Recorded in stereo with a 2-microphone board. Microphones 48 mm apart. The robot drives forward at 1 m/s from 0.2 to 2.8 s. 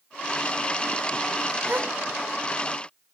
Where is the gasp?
50° right (ahead or behind), 1.4 m; by 1.9 s 55° right (ahead or behind), 1.2 m.